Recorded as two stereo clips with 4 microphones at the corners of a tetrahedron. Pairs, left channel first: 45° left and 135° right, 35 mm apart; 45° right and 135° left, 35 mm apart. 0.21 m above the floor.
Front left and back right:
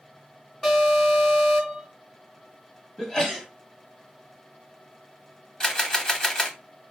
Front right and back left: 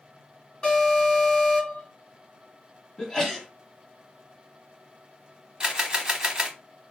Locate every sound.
0.6 s an alarm: 25° right, 2.5 m
3.0 s a sneeze: 5° right, 1.0 m
5.6 s a camera shutter: 90° left, 0.7 m